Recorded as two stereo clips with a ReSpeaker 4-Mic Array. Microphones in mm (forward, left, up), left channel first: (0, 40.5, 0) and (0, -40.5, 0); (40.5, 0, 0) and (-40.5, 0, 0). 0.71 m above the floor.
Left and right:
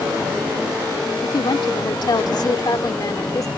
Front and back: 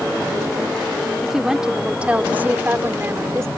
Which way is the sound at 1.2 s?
95° left.